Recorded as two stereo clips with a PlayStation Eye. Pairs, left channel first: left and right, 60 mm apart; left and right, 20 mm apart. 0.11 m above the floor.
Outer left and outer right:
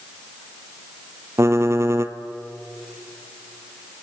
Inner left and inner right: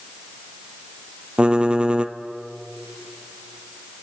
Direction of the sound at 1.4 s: 50° right (ahead or behind).